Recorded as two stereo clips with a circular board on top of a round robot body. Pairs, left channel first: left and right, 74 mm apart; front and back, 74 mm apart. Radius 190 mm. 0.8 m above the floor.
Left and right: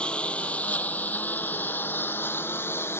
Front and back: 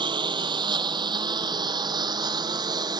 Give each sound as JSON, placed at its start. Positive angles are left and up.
{"t": 0.0, "sound": "a lawn mower", "azimuth_deg": 170}